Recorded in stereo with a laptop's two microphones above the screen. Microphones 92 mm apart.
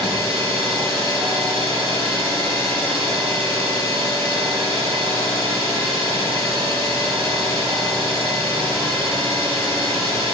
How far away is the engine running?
About 7 m.